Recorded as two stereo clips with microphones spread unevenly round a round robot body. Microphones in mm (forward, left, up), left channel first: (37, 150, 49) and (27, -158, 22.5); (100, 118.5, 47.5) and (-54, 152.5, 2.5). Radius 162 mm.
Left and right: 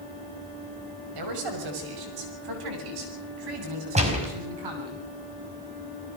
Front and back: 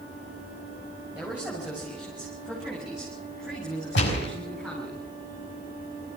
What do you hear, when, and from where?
1.1 s a man speaking: 110° right, 6 m; by 5.0 s 105° right, 10 m
4.0 s a gunshot: 20° right, 5 m